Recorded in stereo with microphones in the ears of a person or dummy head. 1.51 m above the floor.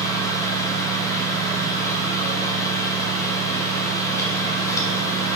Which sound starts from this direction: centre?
A fan, at 0.0 s.